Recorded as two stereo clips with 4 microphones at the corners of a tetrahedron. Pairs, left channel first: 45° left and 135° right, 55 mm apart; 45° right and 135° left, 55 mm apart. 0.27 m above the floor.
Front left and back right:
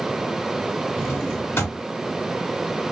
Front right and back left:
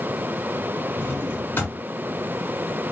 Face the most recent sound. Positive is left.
turn(degrees=10)